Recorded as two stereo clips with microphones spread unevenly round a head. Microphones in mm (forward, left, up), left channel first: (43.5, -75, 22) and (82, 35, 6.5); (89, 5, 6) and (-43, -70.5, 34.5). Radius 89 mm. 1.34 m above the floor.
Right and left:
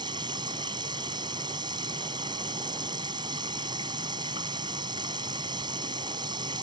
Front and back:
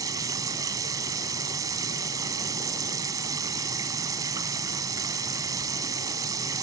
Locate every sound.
0.0 s running water: 140° left